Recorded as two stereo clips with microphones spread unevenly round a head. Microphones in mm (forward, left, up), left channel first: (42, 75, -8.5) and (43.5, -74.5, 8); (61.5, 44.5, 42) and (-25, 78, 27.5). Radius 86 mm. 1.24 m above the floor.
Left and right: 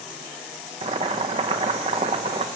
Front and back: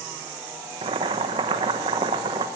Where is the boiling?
155° right, 1.0 m.